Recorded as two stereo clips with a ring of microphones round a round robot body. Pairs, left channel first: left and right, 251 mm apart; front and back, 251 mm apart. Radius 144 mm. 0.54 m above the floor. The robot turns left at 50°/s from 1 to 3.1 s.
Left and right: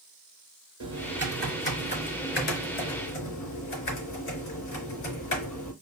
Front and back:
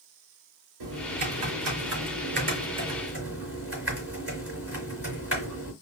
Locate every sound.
0.8 s typing on a keyboard: 160° right, 3.5 m; by 5.7 s 95° left, 3.5 m